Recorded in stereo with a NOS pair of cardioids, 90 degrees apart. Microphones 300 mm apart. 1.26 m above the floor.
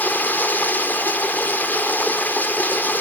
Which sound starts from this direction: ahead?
Running water, at 0.0 s.